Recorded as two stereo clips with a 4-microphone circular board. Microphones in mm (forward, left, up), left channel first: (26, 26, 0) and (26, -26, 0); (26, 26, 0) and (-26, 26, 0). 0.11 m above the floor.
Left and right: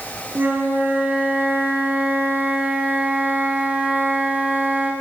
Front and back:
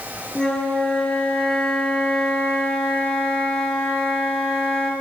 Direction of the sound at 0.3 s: 65° right.